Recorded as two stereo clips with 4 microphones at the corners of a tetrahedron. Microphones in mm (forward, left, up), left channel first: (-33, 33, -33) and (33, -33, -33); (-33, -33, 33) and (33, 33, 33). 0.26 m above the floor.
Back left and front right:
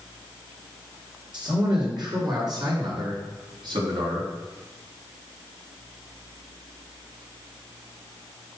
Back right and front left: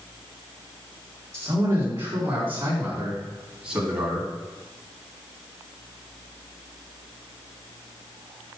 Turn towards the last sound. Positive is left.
turn(degrees=-40)